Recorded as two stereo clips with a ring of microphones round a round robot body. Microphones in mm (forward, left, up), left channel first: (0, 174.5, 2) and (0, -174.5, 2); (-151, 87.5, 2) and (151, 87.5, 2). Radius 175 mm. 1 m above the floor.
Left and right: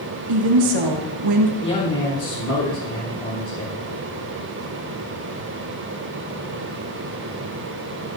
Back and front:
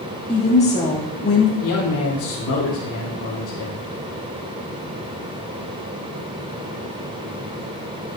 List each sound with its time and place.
0.3 s a woman speaking: 105° right, 2 m; by 1.5 s 120° right, 1.8 m
1.6 s a man speaking: 150° left, 4 m